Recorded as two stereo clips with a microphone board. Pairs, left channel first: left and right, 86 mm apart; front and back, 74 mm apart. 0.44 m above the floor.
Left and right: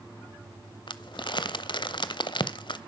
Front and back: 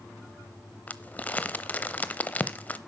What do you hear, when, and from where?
0.9 s crumpling: 65° left, 0.8 m